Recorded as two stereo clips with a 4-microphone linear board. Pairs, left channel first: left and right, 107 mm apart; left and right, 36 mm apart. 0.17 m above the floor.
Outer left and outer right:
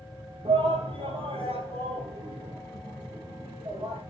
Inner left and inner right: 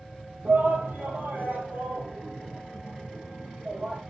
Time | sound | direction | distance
0.5 | a shout | 50° right (ahead or behind) | 4.5 m